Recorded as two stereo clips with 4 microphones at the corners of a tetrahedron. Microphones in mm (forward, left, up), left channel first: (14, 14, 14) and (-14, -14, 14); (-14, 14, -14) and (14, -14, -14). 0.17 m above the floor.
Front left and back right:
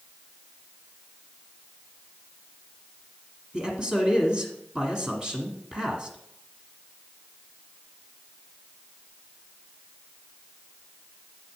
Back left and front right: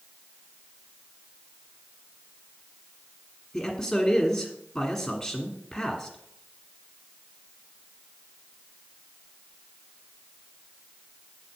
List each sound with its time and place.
3.5 s a man speaking: straight behind, 1.6 m